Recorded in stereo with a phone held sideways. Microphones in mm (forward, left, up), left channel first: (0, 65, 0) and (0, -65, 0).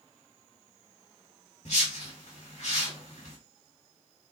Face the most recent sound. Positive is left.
turn(degrees=65)  # may be behind; listen again after turning